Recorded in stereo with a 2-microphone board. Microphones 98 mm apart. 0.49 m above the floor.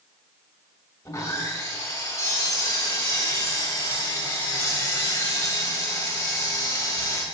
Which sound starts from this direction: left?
Sawing, at 1.1 s.